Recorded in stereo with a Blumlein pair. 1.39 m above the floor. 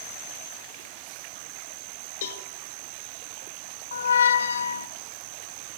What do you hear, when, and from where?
2.2 s a cowbell: 60° left, 1.6 m
3.9 s a squeak: 70° left, 0.8 m